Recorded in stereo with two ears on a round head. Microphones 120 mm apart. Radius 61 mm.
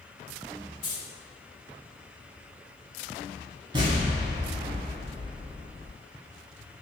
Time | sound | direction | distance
0.8 | keys jangling | 65° left (ahead or behind) | 1.4 m
3.7 | an explosion | 35° right (ahead or behind) | 0.8 m